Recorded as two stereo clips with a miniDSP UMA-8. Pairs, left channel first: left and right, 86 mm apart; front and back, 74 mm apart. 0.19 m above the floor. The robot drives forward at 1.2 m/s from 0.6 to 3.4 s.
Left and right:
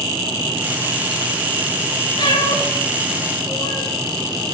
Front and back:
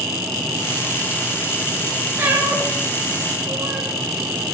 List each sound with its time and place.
2.2 s a cat meowing: 115° left, 7 m; by 3.9 s 125° left, 7.5 m